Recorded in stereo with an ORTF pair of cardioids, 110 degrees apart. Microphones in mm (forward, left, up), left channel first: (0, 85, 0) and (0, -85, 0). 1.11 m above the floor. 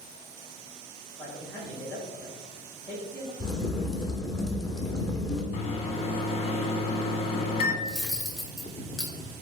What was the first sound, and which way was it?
A man speaking, 10° left.